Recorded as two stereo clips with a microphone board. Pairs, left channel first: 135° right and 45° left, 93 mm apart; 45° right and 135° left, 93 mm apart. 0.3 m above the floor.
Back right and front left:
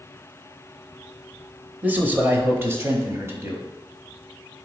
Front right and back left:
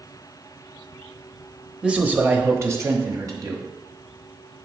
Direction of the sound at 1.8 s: 75° left.